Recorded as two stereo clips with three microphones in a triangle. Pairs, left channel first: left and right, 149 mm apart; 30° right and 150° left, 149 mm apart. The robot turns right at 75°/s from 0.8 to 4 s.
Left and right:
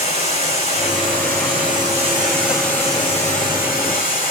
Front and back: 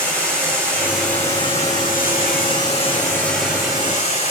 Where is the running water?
135° right, 3.5 m; by 4.3 s 105° left, 3.5 m.